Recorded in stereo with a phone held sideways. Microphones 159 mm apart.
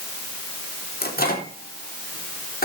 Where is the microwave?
75° left (ahead or behind), 3.5 m.